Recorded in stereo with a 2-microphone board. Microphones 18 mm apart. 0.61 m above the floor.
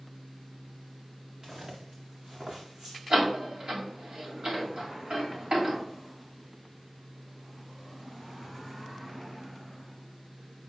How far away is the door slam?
About 2.5 m.